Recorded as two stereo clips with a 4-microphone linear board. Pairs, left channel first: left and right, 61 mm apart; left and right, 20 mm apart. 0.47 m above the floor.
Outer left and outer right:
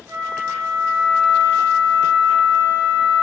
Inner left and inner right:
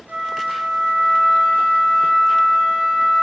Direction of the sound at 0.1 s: 55° right (ahead or behind).